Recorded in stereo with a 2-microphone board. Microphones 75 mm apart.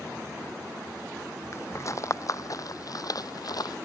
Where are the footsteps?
40° left (ahead or behind); by 3.8 s 65° left (ahead or behind).